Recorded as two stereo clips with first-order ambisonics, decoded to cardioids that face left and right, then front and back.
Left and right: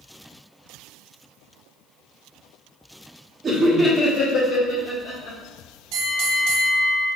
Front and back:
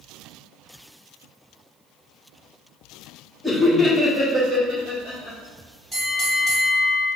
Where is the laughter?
65° right, 0.7 m; by 5.4 s 80° left, 1.3 m.